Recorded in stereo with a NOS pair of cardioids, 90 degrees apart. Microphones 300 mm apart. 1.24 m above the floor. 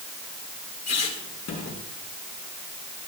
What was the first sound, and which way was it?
A squeak, 55° left.